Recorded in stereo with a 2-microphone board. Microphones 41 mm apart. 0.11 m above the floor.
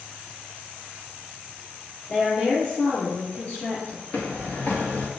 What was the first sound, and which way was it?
A woman speaking, 10° left (ahead or behind).